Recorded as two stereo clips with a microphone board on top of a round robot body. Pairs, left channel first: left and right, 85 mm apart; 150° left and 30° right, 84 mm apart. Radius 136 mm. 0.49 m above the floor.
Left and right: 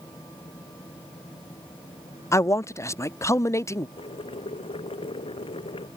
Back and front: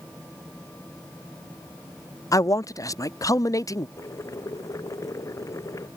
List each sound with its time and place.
2.3 s a man speaking: 125° left
4.0 s boiling: 95° left